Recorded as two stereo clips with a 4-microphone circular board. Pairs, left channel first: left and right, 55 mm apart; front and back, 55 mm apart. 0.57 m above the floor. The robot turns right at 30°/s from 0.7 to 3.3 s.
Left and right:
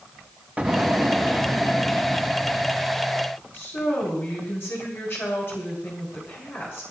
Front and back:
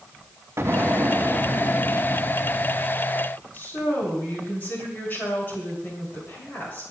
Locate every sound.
0.6 s an explosion: 155° right, 1.2 m; by 3.1 s 80° right, 1.2 m
3.5 s a woman speaking: 50° left, 6.5 m